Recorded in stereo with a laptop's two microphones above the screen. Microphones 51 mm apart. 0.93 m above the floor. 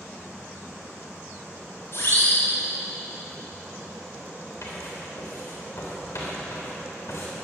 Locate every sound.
1.9 s a siren: 55° left (ahead or behind), 4.5 m
4.6 s writing: 70° left (ahead or behind), 3 m